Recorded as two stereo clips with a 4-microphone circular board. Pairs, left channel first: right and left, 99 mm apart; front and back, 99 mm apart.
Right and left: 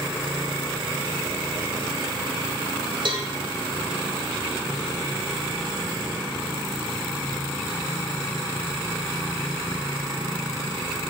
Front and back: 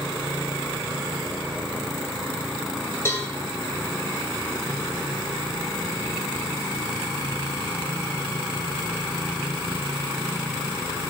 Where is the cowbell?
65° left, 2.5 m.